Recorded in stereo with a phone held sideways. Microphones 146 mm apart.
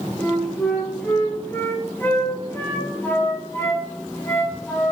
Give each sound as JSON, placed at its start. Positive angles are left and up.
{"t": 0.2, "sound": "a flute", "side_deg": 15, "distance_m": 1.0}